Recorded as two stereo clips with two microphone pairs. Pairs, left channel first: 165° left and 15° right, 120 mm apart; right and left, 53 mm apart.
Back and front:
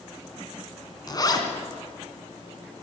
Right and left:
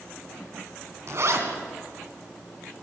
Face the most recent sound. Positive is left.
turn(degrees=110)